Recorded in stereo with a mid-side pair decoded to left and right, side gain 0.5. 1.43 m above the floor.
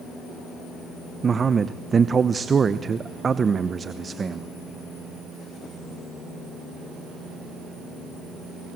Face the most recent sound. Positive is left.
turn(degrees=-35)